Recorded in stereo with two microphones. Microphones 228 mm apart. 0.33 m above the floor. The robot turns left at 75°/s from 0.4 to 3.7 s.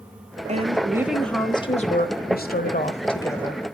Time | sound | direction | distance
0.5 | a woman speaking | 130° right | 1.2 m